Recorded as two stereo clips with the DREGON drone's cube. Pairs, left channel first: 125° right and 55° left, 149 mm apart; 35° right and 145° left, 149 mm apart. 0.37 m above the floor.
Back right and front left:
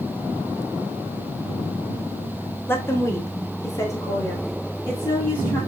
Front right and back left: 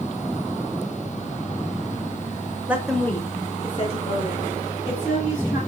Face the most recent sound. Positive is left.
turn(degrees=-55)